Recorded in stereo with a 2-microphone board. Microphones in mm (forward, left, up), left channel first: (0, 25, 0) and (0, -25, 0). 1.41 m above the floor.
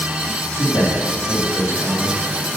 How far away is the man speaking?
About 3.5 m.